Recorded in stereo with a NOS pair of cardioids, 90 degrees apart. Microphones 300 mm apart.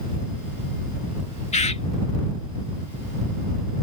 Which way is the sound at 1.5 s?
20° left.